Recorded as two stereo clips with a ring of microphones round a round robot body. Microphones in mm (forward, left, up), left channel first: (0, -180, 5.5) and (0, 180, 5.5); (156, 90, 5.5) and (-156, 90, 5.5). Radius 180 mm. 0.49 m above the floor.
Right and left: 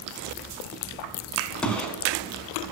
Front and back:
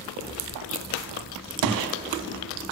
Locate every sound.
1.6 s a gunshot: 175° right, 0.6 m